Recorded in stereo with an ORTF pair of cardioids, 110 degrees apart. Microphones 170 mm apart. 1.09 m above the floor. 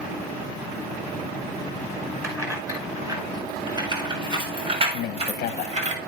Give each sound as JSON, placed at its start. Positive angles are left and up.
{"t": 2.2, "sound": "keys jangling", "azimuth_deg": -15, "distance_m": 5.5}
{"t": 4.9, "sound": "a man speaking", "azimuth_deg": 70, "distance_m": 0.8}